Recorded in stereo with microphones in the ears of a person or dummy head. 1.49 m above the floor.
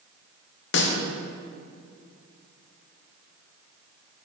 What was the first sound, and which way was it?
A snare drum, 60° left (ahead or behind).